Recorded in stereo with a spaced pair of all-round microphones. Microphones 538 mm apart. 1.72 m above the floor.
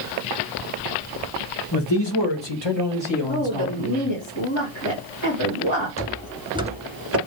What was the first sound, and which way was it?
A man speaking, 45° left (ahead or behind).